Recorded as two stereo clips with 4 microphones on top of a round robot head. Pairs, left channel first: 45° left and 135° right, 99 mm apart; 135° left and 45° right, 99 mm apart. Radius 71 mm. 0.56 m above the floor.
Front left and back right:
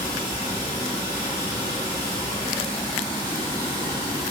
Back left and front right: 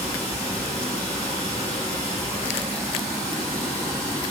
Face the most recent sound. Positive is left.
turn(degrees=50)